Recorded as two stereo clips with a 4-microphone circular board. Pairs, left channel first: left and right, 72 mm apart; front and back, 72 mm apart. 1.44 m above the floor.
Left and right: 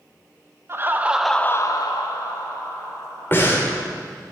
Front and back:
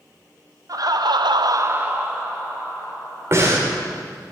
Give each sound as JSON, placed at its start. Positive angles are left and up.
{"t": 0.7, "sound": "laughter", "azimuth_deg": -145, "distance_m": 1.0}
{"t": 3.3, "sound": "breathing", "azimuth_deg": 140, "distance_m": 1.8}